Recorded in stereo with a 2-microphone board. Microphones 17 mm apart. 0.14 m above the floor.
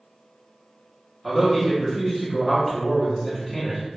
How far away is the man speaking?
About 1.3 m.